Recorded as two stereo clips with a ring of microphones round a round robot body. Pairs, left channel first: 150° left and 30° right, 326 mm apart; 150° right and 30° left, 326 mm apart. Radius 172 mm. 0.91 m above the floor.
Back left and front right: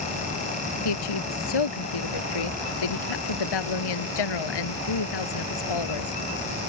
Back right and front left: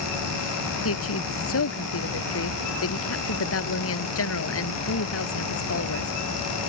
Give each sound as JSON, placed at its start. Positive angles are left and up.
{"t": 0.8, "sound": "a woman speaking", "azimuth_deg": 160}